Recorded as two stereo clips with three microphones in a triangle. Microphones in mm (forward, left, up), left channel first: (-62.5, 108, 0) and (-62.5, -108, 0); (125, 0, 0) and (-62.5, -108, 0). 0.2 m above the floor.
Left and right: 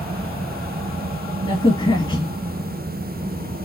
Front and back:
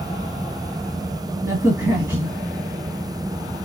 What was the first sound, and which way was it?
A crack, 140° left.